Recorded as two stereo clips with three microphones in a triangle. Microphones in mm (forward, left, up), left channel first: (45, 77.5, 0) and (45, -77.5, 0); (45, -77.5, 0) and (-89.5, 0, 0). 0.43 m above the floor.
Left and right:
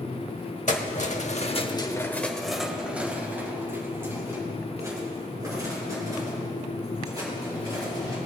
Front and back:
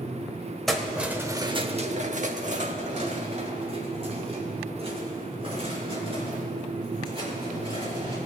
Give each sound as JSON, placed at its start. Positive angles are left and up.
{"t": 0.7, "sound": "keys jangling", "azimuth_deg": 60, "distance_m": 1.1}